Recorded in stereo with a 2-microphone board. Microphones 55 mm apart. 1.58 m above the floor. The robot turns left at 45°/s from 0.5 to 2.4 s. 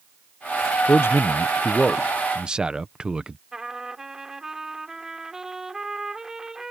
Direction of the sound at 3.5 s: 10° right (ahead or behind).